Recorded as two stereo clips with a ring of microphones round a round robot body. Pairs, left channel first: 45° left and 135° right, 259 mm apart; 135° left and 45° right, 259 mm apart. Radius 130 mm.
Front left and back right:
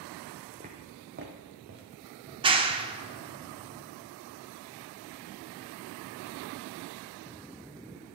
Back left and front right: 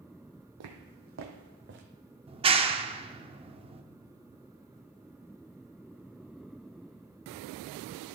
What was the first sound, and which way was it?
Footsteps, 70° right.